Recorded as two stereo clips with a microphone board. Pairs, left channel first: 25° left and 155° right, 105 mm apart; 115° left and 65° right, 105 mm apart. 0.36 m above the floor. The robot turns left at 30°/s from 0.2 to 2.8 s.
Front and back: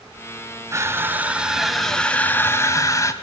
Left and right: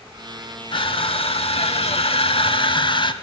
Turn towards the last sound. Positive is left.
turn(degrees=80)